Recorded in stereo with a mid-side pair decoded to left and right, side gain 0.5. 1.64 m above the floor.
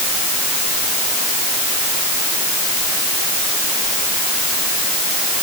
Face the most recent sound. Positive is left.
No sound to turn to.